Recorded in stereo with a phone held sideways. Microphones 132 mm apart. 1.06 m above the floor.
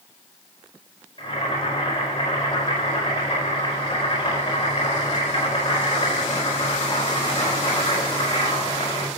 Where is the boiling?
40° left (ahead or behind), 5 m.